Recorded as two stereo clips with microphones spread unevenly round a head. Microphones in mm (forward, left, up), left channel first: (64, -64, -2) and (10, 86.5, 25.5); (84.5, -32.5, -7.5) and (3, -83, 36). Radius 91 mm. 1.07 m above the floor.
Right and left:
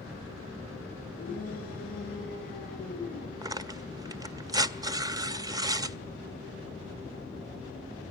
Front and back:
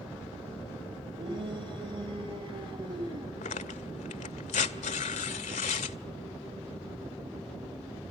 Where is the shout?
115° right, 7 m; by 3.3 s 120° right, 9 m.